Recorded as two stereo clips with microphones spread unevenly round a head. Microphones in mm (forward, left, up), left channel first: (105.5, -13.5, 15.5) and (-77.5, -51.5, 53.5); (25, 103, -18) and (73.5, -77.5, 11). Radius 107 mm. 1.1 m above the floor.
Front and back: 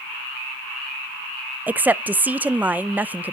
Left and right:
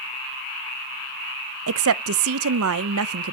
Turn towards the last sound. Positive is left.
turn(degrees=-85)